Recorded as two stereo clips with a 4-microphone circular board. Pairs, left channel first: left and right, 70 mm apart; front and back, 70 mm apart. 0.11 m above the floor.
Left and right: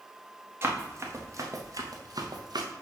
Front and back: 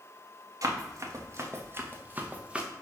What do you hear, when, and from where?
0.6 s running footsteps: 145° right, 1.7 m; by 2.7 s 105° right, 1.3 m